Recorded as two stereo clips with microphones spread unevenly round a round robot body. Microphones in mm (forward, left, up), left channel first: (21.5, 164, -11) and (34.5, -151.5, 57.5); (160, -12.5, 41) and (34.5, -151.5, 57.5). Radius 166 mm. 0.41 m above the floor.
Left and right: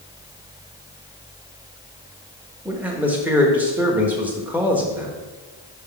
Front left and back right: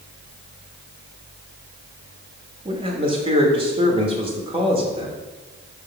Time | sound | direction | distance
2.6 | a man speaking | 175° left | 0.9 m